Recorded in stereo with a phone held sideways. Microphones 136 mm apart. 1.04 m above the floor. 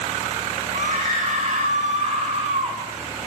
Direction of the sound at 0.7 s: 65° right (ahead or behind).